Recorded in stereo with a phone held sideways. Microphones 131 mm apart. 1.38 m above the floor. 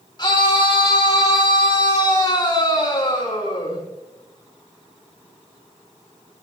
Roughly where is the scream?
Left.